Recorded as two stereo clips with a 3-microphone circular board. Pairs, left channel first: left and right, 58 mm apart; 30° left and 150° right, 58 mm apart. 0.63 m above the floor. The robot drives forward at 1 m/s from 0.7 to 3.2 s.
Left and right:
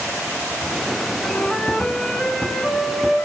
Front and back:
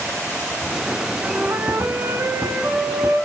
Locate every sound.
1.2 s a flute: 150° left, 1.4 m; by 3.2 s 170° left, 3.5 m